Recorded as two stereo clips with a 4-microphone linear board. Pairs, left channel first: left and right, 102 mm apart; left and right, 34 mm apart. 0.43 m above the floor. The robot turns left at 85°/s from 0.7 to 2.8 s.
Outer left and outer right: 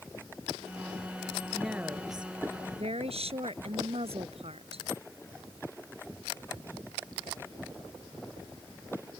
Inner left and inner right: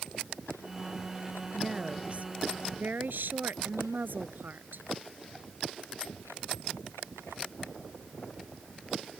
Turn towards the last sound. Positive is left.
turn(degrees=-100)